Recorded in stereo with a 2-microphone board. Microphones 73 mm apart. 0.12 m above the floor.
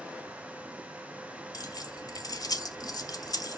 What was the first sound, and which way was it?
Keys jangling, 55° left (ahead or behind).